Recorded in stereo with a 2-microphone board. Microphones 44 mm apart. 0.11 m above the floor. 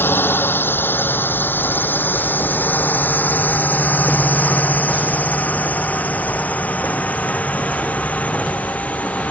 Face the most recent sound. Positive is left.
turn(degrees=35)  # may be behind; listen again after turning